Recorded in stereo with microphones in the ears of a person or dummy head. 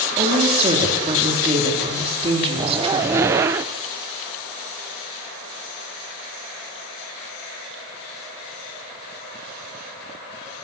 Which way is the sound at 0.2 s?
30° right (ahead or behind).